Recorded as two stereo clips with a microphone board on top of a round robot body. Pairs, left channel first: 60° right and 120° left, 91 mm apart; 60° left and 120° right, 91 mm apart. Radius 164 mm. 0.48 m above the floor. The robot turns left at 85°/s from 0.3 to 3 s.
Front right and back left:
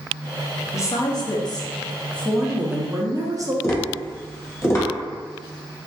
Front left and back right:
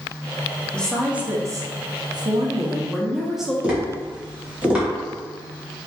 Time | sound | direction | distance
0.7 | a woman speaking | 10° right | 0.8 m
3.6 | tapping | 55° right | 1.3 m